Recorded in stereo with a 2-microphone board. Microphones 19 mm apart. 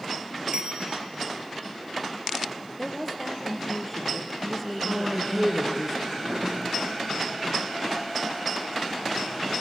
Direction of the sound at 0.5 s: 55° right (ahead or behind).